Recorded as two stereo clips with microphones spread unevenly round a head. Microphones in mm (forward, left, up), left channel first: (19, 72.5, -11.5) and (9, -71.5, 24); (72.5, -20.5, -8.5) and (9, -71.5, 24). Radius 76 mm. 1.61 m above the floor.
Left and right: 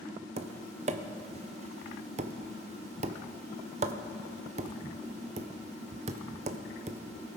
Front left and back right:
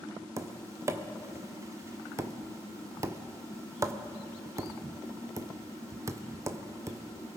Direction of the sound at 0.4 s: 115° right.